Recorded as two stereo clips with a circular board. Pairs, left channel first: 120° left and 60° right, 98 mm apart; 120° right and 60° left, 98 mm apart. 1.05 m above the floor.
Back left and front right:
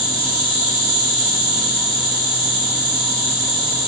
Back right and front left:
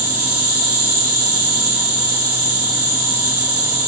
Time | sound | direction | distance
0.0 | an insect | 125° left | 4 m